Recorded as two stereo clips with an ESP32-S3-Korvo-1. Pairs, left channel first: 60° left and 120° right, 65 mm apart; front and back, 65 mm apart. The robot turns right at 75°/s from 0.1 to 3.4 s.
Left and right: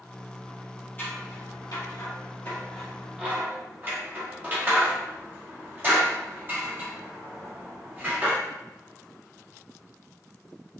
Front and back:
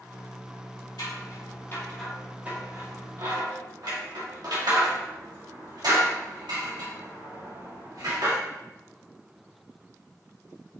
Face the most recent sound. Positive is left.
turn(degrees=-175)